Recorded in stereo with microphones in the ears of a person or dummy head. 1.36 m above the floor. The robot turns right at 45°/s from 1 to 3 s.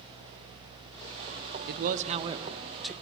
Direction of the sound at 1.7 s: 55° right.